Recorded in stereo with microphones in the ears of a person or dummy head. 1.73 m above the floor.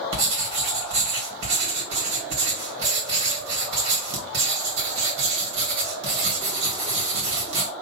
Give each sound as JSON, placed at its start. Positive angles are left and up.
{"t": 0.1, "sound": "writing", "side_deg": -65, "distance_m": 2.5}